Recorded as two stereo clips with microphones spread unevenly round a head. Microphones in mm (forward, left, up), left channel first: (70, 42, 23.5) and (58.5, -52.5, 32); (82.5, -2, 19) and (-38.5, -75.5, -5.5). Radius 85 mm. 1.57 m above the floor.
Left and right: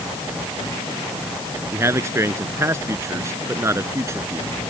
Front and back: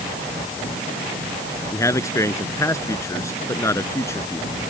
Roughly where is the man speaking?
Ahead right.